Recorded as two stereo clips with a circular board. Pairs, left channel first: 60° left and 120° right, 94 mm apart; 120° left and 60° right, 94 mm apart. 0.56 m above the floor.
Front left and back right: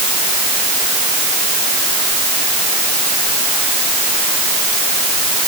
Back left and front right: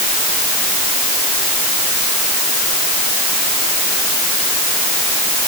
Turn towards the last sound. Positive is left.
No sound to turn to.